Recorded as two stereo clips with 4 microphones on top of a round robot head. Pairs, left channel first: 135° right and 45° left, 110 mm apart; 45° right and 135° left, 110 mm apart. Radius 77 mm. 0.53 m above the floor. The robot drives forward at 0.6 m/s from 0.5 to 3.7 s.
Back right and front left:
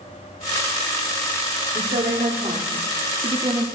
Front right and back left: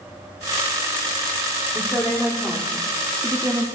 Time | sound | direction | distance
1.8 | a woman speaking | 30° left | 1.7 m